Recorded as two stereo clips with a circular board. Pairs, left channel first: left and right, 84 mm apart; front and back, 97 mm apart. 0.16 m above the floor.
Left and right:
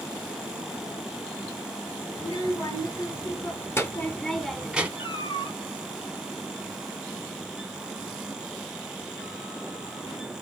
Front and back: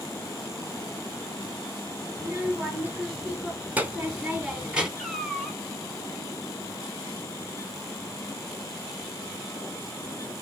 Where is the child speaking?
110° left, 1.9 m; by 4.9 s 120° right, 0.9 m.